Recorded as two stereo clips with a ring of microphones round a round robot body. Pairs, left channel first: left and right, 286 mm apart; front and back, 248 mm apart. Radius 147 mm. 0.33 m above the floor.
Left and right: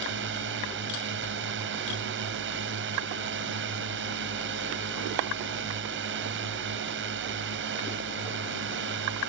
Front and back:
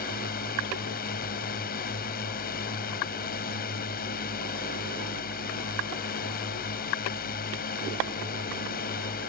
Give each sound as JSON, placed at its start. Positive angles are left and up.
{"t": 0.0, "sound": "a drone", "azimuth_deg": -50}